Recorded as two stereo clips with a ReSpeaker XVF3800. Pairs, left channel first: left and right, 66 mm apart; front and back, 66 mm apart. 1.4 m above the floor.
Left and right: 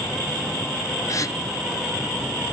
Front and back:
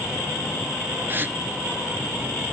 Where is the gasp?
125° left, 0.7 m.